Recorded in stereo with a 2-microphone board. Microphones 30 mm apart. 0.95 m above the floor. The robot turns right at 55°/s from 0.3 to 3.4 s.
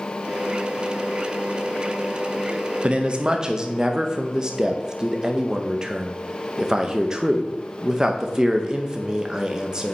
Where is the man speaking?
65° right, 0.6 m; by 9.9 s 35° right, 0.6 m.